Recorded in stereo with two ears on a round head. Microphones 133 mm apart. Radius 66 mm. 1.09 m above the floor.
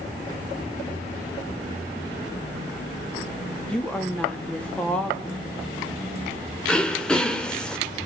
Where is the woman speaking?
5° left (ahead or behind), 2.5 m.